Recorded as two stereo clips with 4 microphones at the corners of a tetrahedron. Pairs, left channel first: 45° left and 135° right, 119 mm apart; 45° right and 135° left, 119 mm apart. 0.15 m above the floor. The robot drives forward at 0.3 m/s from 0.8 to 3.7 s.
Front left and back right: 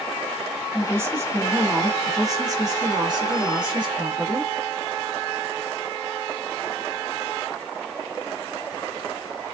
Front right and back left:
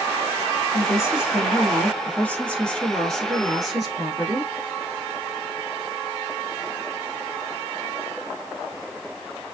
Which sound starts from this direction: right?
A woman speaking, at 0.7 s.